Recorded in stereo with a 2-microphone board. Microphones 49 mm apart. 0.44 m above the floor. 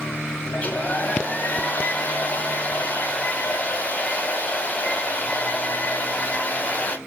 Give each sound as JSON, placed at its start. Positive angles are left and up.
{"t": 0.5, "sound": "a hair dryer", "side_deg": 30, "distance_m": 0.5}